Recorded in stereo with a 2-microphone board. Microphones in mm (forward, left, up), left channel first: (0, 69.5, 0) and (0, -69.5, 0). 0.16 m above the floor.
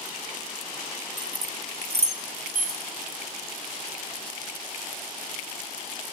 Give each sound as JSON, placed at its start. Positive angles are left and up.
{"t": 1.2, "sound": "keys jangling", "side_deg": 0, "distance_m": 0.9}